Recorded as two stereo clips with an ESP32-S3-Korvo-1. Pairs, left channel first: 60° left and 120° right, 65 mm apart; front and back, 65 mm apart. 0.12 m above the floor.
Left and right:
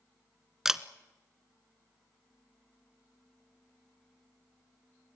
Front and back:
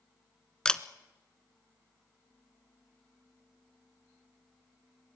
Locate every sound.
0.7 s a camera shutter: 50° right, 0.7 m